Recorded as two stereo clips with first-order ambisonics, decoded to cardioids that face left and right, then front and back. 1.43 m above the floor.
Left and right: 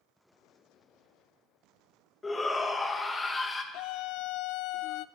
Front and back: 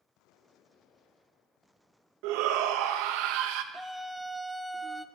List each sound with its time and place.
2.2 s a shout: 170° left, 1.4 m
3.7 s a scream: 90° left, 0.5 m